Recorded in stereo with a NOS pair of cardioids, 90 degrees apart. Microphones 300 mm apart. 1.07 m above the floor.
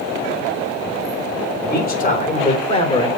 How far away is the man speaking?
About 4 m.